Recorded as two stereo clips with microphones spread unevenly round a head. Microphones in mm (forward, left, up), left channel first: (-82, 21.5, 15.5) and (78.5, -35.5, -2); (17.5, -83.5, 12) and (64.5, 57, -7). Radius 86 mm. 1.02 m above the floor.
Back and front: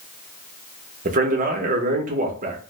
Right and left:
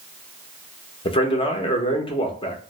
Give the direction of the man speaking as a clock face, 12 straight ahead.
2 o'clock.